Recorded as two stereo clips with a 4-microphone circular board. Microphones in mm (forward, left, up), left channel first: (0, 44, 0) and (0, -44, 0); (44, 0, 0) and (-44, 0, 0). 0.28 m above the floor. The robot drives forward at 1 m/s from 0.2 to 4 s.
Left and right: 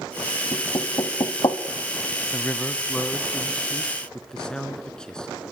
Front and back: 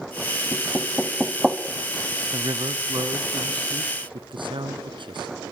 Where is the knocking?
65° left, 2 m; by 1.6 s 105° left, 1.9 m.